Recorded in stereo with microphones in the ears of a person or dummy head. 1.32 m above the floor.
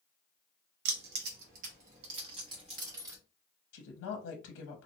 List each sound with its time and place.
0.8 s keys jangling: 65° right (ahead or behind), 1.0 m; by 3.2 s 20° right (ahead or behind), 1.5 m
3.7 s a woman speaking: 70° left (ahead or behind), 0.7 m